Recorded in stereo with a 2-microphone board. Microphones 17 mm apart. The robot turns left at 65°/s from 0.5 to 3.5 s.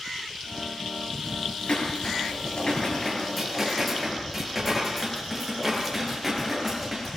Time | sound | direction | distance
1.7 | dishes clattering | 110° left | 8 m